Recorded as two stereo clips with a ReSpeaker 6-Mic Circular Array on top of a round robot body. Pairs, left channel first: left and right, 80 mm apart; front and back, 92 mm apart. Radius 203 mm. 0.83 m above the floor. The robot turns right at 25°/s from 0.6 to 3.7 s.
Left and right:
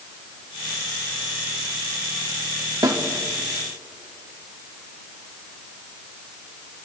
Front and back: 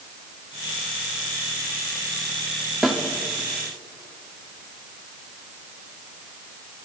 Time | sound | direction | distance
2.8 | a snare drum | 90° right | 1.8 m